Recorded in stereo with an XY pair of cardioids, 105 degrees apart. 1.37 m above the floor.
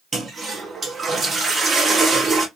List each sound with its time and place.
0.1 s a toilet flushing: 30° right, 1.7 m